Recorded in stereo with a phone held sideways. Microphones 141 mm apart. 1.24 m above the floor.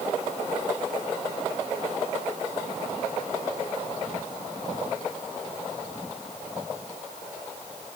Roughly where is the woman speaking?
No woman speaking in this recording.